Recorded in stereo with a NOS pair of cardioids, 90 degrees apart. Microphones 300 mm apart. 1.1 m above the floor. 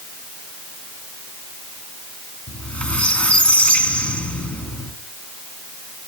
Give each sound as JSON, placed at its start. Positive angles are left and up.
{"t": 2.5, "sound": "a squeak", "azimuth_deg": 5, "distance_m": 3.0}